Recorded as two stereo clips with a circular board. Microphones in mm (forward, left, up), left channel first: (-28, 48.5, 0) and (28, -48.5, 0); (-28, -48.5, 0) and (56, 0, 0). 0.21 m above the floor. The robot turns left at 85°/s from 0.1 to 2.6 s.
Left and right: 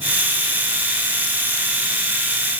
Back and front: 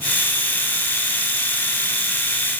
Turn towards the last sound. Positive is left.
No sound to turn to.